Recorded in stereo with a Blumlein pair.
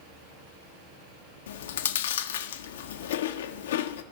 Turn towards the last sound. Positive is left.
turn(degrees=60)